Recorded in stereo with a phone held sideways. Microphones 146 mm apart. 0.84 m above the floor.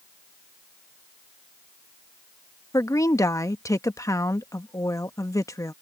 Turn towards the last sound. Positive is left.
turn(degrees=25)  # may be behind; listen again after turning